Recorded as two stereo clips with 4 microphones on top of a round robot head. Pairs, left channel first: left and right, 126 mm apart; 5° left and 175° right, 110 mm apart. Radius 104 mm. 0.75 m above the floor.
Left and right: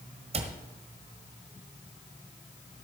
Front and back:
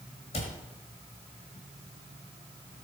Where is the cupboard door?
50° right, 1.4 m.